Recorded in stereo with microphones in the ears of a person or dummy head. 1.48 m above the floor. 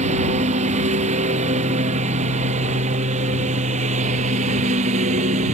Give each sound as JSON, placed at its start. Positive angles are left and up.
{"t": 0.0, "sound": "a lawn mower", "side_deg": -40}